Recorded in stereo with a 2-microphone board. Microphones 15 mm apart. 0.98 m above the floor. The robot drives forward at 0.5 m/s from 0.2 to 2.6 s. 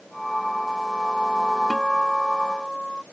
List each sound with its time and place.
1.7 s a guitar: 25° left (ahead or behind)